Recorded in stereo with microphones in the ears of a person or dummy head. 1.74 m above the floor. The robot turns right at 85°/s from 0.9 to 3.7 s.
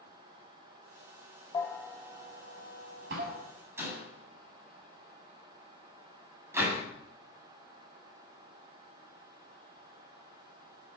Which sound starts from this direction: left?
A bell, at 1.5 s.